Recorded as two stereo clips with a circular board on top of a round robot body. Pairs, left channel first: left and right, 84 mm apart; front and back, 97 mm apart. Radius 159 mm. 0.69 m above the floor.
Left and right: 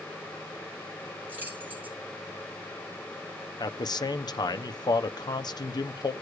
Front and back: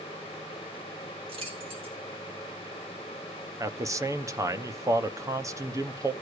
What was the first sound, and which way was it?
Keys jangling, 160° right.